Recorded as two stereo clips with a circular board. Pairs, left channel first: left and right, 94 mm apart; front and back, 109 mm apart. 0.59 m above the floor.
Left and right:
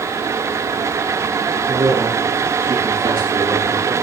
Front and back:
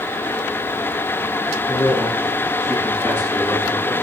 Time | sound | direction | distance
1.7 | a man speaking | 50° right | 5 m